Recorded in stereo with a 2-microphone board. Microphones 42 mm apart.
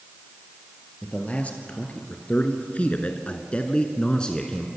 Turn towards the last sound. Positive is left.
turn(degrees=15)  # may be behind; listen again after turning